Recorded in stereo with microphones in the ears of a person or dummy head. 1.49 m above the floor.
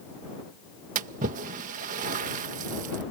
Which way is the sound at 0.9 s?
45° right (ahead or behind).